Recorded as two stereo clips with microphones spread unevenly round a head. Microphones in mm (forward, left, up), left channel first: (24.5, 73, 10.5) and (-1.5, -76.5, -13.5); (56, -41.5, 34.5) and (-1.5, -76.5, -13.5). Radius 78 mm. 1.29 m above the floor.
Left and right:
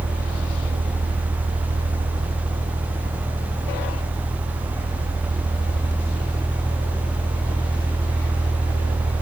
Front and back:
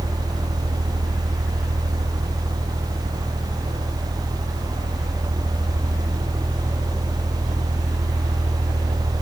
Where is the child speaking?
I don't hear a child speaking.